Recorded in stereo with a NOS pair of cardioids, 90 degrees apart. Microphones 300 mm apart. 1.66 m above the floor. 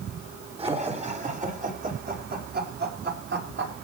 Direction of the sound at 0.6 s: 20° right.